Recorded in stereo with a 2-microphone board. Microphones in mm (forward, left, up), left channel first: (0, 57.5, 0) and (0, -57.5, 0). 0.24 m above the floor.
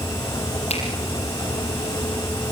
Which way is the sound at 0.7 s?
70° left (ahead or behind).